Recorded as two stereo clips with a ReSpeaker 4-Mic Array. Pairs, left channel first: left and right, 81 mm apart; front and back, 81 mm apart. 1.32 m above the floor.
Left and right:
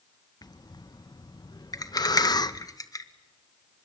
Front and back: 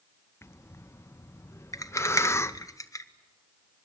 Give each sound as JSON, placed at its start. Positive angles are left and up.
{"t": 0.4, "sound": "breathing", "azimuth_deg": 55, "distance_m": 0.7}
{"t": 1.7, "sound": "a rattle", "azimuth_deg": 45, "distance_m": 1.3}